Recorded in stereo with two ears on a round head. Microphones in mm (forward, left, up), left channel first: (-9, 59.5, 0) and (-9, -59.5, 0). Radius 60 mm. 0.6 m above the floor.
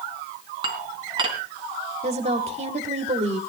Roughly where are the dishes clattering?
Right.